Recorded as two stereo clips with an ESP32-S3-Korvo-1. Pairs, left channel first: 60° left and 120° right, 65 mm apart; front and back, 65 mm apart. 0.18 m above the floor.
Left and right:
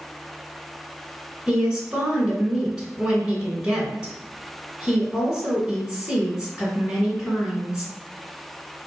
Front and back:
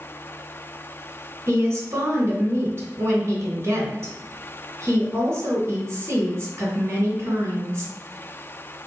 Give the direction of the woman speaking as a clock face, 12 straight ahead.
6 o'clock.